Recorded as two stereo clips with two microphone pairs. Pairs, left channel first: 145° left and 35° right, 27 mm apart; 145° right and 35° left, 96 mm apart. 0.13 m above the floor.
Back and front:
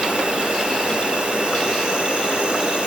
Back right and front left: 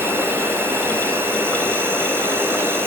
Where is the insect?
15° right, 2.5 m.